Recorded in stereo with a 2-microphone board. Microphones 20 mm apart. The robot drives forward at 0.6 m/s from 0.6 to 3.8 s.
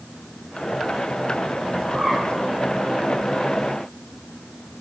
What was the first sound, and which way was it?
A bird, 45° right (ahead or behind).